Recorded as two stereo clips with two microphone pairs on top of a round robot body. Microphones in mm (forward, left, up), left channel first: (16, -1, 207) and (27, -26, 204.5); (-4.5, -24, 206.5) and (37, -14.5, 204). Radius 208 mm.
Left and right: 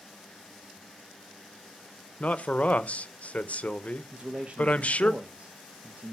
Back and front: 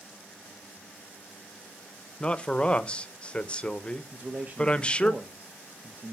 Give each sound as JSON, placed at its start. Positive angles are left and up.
{"t": 2.2, "sound": "a man speaking", "azimuth_deg": 135, "distance_m": 0.7}
{"t": 4.1, "sound": "a man speaking", "azimuth_deg": -30, "distance_m": 1.0}